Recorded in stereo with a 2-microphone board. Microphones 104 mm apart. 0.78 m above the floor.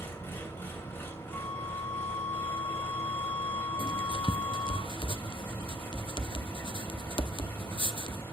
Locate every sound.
0.0 s an engine running: 25° left (ahead or behind), 2.5 m
1.3 s a flute: 25° left (ahead or behind), 4 m
3.8 s writing: 60° left (ahead or behind), 0.6 m